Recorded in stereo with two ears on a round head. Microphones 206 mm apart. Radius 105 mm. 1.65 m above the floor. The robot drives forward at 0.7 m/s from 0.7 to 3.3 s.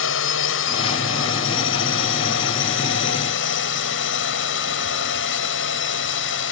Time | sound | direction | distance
0.0 | a drone | 60° left (ahead or behind) | ?